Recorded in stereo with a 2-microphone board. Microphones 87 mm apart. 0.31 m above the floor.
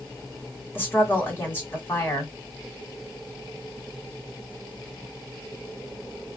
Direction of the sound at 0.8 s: 25° left (ahead or behind).